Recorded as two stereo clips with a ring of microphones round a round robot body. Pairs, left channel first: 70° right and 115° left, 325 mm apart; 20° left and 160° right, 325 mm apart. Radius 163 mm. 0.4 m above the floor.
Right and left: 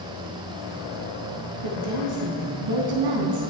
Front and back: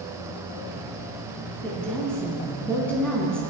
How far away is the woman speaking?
About 4 m.